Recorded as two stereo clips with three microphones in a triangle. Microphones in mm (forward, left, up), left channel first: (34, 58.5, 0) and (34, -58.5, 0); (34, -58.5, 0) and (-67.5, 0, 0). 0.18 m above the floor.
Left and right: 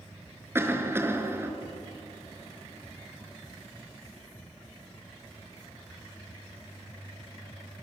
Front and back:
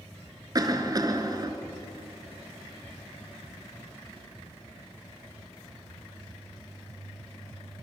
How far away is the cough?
About 2.5 m.